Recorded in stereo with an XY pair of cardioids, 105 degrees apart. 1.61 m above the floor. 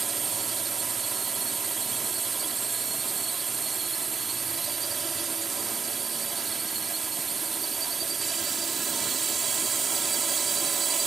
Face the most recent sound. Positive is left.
turn(degrees=-40)